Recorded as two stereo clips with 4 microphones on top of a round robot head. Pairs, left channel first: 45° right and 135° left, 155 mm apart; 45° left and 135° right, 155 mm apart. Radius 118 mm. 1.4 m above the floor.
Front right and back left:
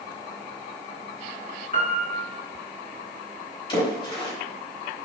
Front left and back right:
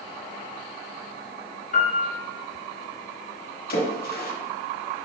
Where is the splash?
20° left, 3 m.